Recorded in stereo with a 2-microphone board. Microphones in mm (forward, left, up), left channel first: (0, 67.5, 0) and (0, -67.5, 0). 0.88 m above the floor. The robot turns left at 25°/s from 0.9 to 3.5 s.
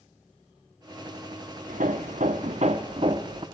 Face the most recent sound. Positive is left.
turn(degrees=-145)